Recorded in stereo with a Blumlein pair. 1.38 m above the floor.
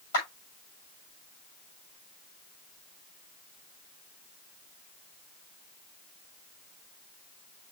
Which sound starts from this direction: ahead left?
A clap, at 0.1 s.